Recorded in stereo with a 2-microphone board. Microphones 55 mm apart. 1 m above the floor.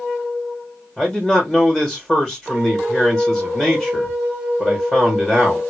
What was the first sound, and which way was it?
A man speaking, centre (ahead or behind).